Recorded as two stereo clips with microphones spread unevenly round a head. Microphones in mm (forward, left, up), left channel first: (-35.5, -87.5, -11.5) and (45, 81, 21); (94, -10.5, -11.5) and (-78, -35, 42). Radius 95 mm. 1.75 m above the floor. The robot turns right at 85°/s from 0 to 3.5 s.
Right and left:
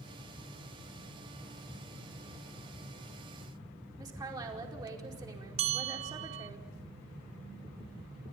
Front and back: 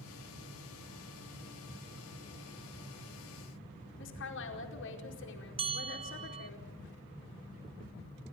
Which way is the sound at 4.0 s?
5° right.